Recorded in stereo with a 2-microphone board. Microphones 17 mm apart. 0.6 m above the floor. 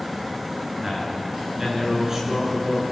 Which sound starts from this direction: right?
A man speaking, at 0.8 s.